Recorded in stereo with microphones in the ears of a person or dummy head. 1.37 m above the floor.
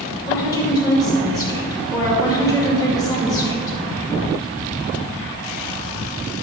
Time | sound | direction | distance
0.3 | a woman speaking | 20° left (ahead or behind) | 2 m